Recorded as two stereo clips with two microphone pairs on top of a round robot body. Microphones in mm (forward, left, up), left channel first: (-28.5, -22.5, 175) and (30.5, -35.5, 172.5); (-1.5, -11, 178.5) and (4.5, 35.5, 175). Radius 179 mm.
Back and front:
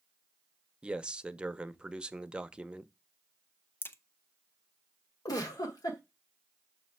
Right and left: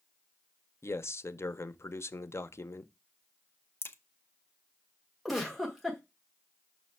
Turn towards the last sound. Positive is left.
turn(degrees=175)